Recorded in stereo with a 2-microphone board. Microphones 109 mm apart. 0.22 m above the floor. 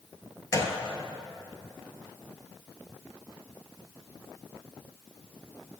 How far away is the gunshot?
About 0.8 m.